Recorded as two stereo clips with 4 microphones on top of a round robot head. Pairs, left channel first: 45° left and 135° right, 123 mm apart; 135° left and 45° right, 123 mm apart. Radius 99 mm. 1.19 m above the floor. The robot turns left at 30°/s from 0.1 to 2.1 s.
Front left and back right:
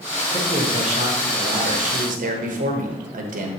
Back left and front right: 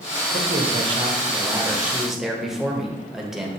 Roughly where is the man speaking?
Right.